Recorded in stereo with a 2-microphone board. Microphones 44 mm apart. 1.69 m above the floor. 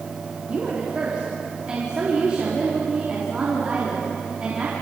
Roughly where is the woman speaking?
Right.